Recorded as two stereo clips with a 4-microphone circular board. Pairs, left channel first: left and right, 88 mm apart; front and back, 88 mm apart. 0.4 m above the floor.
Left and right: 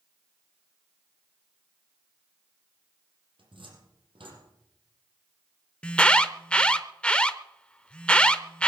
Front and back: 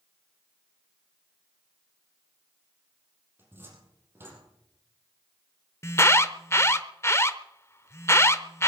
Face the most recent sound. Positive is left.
turn(degrees=25)